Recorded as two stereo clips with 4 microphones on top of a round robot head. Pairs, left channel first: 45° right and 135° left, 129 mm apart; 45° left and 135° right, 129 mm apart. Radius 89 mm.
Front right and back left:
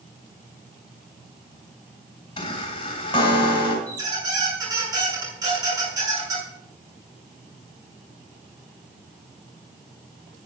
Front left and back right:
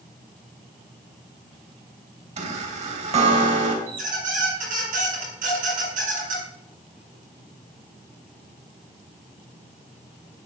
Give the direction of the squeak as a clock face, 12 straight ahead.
5 o'clock.